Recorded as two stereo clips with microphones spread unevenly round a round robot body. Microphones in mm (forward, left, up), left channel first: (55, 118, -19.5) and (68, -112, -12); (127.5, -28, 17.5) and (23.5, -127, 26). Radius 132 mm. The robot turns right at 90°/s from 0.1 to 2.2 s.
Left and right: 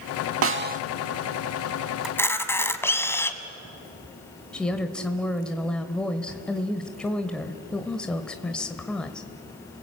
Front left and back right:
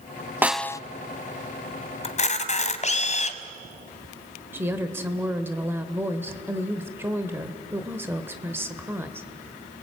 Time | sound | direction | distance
0.4 | a snare drum | 60° right | 0.6 m
2.0 | a camera shutter | straight ahead | 1.6 m
4.5 | a woman speaking | 170° left | 1.0 m